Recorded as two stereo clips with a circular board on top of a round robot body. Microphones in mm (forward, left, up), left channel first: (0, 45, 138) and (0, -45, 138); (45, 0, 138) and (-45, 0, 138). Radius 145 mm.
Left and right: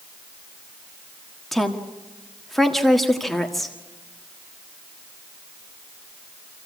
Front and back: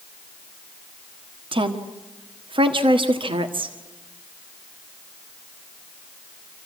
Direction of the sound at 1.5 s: Straight behind.